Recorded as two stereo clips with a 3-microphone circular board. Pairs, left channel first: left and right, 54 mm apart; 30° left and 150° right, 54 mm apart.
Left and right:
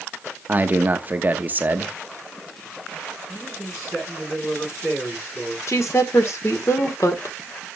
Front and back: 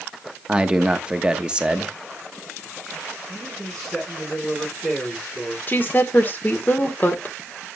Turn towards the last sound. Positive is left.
turn(degrees=80)